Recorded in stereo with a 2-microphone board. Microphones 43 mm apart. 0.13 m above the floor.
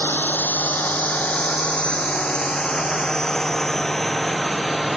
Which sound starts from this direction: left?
A drone, at 0.0 s.